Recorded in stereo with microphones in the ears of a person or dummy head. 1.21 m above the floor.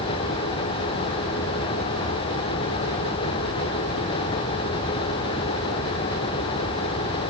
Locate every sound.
Only background noise.